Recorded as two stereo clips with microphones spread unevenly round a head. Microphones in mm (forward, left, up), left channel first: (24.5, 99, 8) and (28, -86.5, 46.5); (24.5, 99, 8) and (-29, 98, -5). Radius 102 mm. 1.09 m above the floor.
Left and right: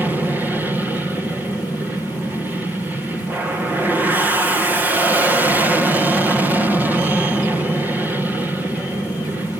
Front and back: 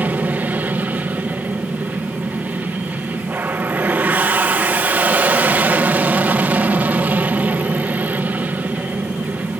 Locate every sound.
0.0 s an aircraft: straight behind